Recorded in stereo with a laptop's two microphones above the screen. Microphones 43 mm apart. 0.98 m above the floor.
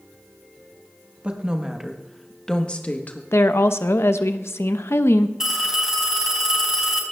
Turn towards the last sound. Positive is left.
turn(degrees=-15)  # may be behind; listen again after turning